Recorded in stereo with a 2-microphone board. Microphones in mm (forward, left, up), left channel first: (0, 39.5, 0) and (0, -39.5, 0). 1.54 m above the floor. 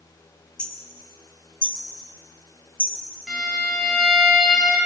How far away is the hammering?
About 3 m.